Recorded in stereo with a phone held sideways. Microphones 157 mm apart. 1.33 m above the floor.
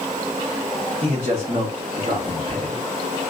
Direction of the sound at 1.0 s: 40° right (ahead or behind).